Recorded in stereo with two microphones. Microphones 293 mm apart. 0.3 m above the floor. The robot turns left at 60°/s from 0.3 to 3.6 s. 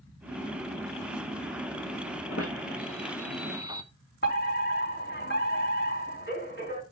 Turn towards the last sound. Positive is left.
turn(degrees=35)  # may be behind; listen again after turning